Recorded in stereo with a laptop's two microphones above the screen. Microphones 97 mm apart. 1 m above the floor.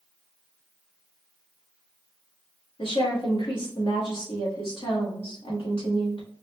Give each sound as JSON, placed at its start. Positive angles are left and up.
{"t": 2.8, "sound": "a woman speaking", "side_deg": 65, "distance_m": 2.0}